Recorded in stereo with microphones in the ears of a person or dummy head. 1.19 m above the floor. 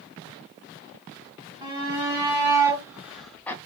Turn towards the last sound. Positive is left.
turn(degrees=10)  # may be behind; listen again after turning